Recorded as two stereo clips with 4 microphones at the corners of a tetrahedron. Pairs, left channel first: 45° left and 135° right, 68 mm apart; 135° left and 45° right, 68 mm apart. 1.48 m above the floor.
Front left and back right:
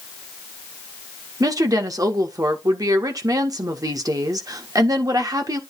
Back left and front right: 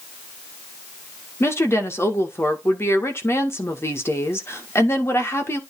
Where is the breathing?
I don't hear breathing.